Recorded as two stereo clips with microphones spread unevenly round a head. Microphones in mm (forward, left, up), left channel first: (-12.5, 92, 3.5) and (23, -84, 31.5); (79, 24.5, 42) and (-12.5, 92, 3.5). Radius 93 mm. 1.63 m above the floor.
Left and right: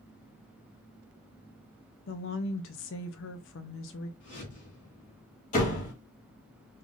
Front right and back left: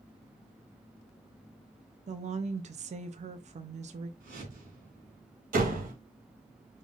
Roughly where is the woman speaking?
Behind left.